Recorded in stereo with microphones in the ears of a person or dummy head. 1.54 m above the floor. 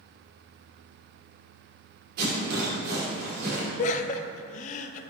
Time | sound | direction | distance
2.2 | a rattle | 55° right (ahead or behind) | 2.5 m
3.8 | laughter | 45° left (ahead or behind) | 0.6 m